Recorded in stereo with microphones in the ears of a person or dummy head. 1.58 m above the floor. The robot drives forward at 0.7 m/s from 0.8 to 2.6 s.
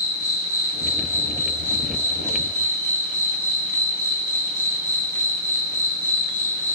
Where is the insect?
20° left (ahead or behind), 1.8 m; by 6.8 s 10° left (ahead or behind), 3 m.